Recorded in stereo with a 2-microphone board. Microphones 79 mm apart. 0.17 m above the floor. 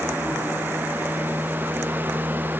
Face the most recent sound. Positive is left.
No sound to turn to.